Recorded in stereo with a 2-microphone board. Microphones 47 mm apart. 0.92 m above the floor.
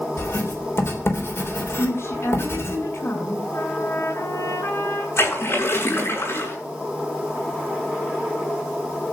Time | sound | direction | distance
0.2 | writing | 60° left (ahead or behind) | 3.5 m
1.8 | a woman speaking | 60° left (ahead or behind) | 7.5 m
3.5 | a trumpet | 70° left (ahead or behind) | 6.5 m
5.2 | a splash | 55° left (ahead or behind) | 7.5 m